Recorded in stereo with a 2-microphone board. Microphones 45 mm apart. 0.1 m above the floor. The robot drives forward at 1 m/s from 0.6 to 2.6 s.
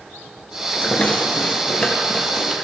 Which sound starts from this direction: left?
A rattle, at 0.7 s.